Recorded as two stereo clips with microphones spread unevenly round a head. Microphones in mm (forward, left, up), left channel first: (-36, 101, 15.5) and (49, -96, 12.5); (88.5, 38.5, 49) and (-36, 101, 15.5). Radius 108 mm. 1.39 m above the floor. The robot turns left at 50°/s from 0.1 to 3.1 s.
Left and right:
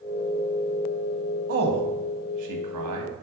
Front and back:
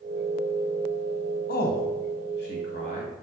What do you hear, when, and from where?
1.5 s a man speaking: 15° right, 1.3 m; by 3.1 s 95° right, 1.3 m